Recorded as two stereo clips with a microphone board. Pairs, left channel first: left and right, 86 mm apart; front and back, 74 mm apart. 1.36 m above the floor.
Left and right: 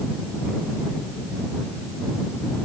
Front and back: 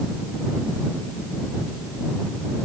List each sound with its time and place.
Only background noise.